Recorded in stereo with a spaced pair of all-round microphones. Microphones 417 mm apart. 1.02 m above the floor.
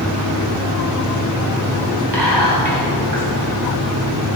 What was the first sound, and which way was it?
Whispering, 80° right.